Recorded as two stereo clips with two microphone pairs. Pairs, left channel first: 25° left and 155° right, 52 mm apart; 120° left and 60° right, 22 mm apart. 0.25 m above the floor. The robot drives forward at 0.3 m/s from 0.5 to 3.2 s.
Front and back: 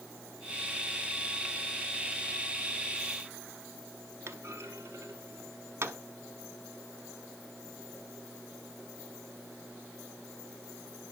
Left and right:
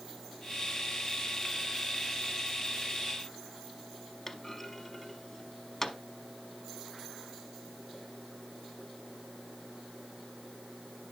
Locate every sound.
4.3 s a clunk: 160° right, 0.9 m